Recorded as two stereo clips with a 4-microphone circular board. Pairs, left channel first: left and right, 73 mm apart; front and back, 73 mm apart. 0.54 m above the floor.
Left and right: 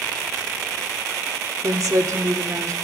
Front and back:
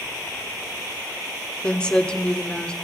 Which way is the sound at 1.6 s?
70° right.